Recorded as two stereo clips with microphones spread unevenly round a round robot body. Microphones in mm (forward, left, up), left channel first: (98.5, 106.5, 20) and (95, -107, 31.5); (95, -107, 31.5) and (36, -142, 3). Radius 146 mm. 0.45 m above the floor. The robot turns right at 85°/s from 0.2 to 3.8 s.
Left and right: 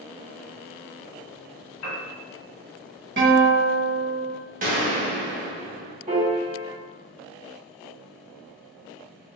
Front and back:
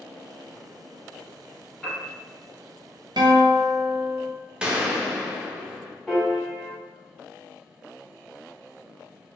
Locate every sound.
1.8 s a piano: 120° left, 0.9 m; by 2.0 s 140° left, 0.9 m
3.2 s a guitar: 145° right, 0.7 m; by 4.3 s 95° right, 0.7 m
4.6 s a gunshot: 120° right, 0.7 m
6.1 s a piano: 85° right, 1.4 m